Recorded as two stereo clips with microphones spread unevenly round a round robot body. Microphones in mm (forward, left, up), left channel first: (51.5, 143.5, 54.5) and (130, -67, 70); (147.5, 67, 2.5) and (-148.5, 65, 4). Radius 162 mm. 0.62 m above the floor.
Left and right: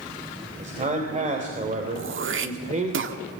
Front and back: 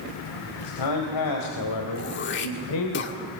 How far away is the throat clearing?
About 1.8 m.